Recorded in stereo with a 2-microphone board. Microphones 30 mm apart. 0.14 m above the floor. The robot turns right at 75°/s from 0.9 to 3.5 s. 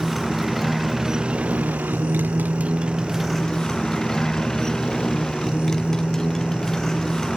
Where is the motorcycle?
Straight behind; by 7.4 s 15° left.